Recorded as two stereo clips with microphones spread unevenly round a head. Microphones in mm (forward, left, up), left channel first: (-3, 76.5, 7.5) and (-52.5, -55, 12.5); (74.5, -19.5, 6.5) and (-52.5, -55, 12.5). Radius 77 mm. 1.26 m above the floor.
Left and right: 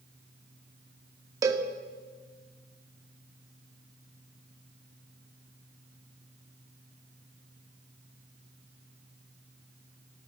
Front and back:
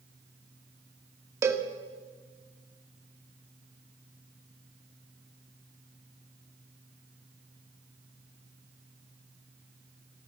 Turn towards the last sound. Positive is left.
turn(degrees=-130)